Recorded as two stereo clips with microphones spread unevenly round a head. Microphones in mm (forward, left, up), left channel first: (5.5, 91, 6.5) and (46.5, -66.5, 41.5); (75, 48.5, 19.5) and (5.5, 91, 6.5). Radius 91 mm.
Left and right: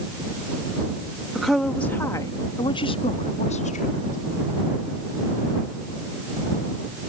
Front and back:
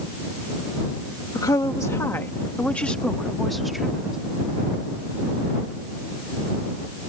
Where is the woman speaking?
10° left; by 4.2 s 65° left.